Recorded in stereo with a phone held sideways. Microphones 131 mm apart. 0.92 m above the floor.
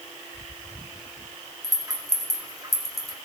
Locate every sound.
1.6 s a rattle: 25° right (ahead or behind), 2 m